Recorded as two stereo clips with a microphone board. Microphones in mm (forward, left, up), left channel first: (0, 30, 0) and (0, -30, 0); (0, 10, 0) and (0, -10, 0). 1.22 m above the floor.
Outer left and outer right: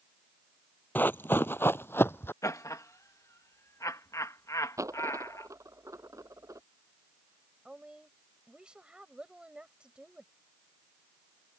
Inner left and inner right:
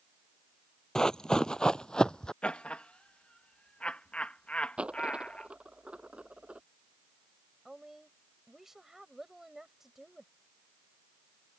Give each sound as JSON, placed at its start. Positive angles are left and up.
{"t": 0.9, "sound": "running footsteps", "side_deg": 35}
{"t": 2.4, "sound": "laughter", "side_deg": 60}
{"t": 4.8, "sound": "a dropped coin", "side_deg": -60}
{"t": 7.7, "sound": "a woman speaking", "side_deg": -15}